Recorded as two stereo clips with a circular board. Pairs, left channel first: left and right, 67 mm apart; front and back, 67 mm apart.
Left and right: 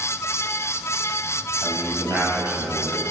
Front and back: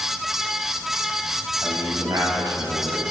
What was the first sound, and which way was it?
A man speaking, 145° right.